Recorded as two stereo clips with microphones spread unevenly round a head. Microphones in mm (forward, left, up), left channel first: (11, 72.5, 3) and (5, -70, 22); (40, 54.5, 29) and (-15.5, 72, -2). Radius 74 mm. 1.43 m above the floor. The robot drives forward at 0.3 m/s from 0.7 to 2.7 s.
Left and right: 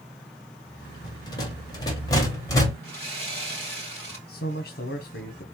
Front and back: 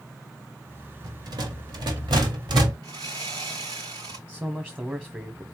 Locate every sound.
1.0 s a rattle: 150° left, 1.6 m; by 2.7 s 160° left, 2 m
2.8 s sawing: 165° left, 3.5 m
4.3 s a man speaking: 100° left, 1.0 m